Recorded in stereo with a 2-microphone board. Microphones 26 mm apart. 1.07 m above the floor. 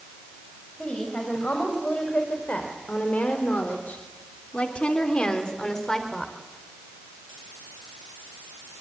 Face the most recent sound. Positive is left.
turn(degrees=10)  # may be behind; listen again after turning